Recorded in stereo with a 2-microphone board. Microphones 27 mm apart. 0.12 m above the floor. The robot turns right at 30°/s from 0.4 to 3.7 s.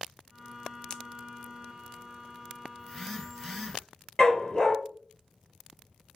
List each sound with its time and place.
0.9 s a pop: 25° left (ahead or behind), 0.6 m; by 1.0 s 20° left (ahead or behind), 0.6 m
2.8 s a phone buzzing: 10° left (ahead or behind), 2.5 m; by 3.8 s 15° right (ahead or behind), 2.5 m
4.2 s a dog barking: 25° left (ahead or behind), 1.0 m